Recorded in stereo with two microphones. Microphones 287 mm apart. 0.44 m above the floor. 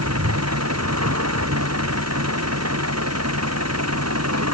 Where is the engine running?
60° right (ahead or behind).